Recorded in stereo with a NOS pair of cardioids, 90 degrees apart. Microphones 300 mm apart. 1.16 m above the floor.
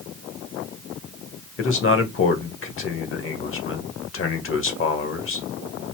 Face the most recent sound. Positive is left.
turn(degrees=45)